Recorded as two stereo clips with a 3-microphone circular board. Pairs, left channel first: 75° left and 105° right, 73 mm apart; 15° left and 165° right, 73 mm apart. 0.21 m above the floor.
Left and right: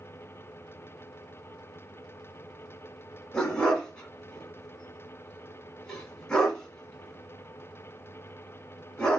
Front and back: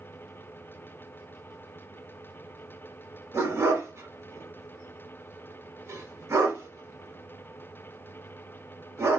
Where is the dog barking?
155° left, 0.8 m.